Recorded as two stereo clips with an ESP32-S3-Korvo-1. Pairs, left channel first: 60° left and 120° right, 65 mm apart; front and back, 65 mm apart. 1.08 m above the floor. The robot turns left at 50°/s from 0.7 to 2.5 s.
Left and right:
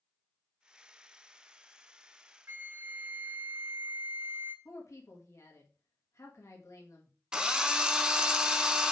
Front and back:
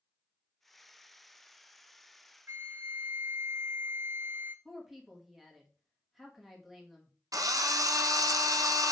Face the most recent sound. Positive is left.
turn(degrees=160)